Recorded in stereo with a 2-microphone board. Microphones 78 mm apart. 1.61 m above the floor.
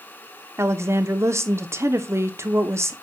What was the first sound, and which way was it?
A woman speaking, 35° right (ahead or behind).